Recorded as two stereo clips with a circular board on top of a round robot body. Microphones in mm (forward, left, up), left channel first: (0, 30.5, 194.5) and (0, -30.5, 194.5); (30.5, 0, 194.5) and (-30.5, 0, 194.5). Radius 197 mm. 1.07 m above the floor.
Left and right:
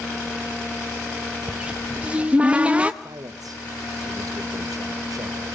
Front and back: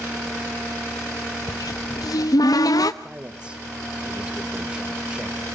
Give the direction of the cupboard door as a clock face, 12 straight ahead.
1 o'clock.